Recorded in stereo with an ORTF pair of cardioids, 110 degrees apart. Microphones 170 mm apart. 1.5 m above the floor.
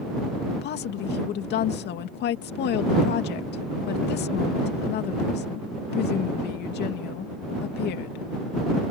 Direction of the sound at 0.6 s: 70° left.